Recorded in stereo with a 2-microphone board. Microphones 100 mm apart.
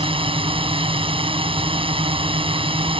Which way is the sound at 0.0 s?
65° right (ahead or behind).